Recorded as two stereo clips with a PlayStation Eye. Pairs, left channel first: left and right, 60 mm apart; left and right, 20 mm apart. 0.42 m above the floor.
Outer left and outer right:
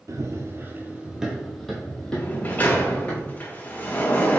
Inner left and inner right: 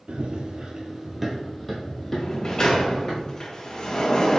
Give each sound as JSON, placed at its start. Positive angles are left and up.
{"t": 0.1, "sound": "running footsteps", "side_deg": -60, "distance_m": 0.7}
{"t": 2.1, "sound": "a sliding door", "side_deg": 30, "distance_m": 0.6}